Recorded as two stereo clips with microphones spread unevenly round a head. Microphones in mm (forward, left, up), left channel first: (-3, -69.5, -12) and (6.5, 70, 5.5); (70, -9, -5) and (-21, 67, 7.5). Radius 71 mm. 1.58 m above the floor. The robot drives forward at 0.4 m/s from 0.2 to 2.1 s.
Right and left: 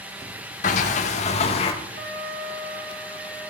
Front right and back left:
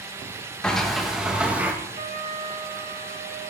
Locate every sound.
0.6 s a sliding door: 125° right, 1.0 m; by 1.7 s 145° right, 1.3 m
1.9 s a trumpet: 110° left, 6.5 m